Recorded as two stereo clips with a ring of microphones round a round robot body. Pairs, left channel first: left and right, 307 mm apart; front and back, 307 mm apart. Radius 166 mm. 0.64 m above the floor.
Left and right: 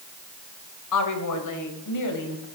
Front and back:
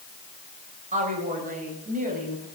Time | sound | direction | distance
0.9 | a woman speaking | 110° left | 3.5 m